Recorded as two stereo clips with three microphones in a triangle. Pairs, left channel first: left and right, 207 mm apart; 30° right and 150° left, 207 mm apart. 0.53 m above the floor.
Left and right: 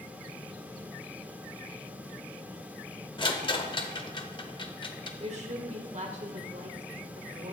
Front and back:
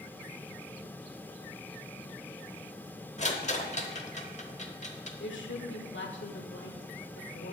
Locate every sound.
3.2 s a rattle: 25° left, 0.9 m
5.2 s a woman speaking: 35° right, 1.6 m